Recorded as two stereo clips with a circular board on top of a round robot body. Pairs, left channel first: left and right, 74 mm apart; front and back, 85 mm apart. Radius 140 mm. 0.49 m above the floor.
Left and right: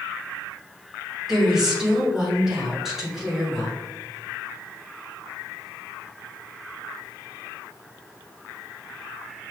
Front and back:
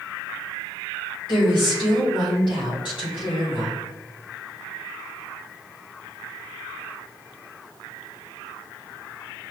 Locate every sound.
1.3 s a woman speaking: 5° right, 2.0 m